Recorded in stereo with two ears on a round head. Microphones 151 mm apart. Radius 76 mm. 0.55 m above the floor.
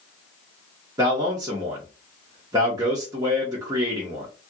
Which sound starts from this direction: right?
A man speaking, at 1.0 s.